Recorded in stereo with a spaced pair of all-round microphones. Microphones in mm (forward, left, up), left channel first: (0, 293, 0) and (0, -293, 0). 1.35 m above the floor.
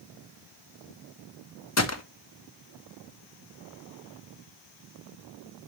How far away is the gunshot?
About 0.8 m.